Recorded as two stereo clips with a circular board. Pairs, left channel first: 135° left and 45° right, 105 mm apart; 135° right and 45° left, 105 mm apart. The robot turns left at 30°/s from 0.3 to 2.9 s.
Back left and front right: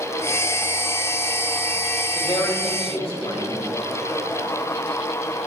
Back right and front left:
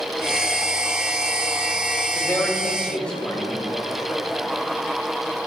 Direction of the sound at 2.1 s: 170° left.